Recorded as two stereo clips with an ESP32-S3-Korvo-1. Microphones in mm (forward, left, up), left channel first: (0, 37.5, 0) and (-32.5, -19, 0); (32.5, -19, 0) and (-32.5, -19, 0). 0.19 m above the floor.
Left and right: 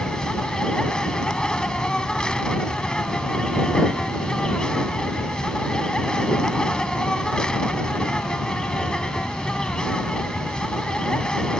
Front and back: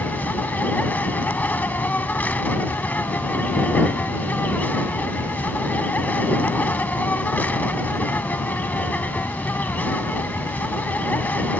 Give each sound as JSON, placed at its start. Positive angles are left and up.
{"t": 0.0, "sound": "an insect", "azimuth_deg": 0}